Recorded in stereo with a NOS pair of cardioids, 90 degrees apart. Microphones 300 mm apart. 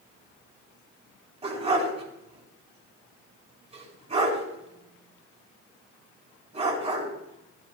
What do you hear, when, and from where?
1.4 s a dog barking: 20° right, 5.5 m